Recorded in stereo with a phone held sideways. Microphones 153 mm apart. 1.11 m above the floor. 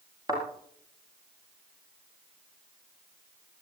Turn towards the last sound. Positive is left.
turn(degrees=-25)  # may be behind; listen again after turning